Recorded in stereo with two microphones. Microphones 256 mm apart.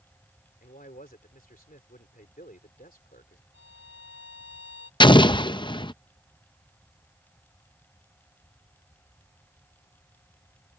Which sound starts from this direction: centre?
An explosion, at 5.0 s.